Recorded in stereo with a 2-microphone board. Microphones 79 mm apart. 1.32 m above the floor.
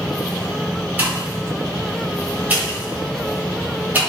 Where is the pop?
20° right (ahead or behind), 1.2 m.